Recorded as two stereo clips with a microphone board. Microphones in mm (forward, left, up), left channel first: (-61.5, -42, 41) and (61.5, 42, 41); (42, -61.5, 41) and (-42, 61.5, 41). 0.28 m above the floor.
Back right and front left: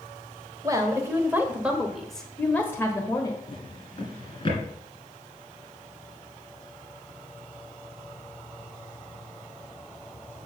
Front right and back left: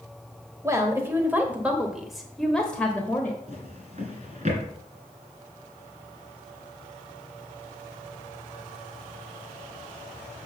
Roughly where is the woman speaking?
Left.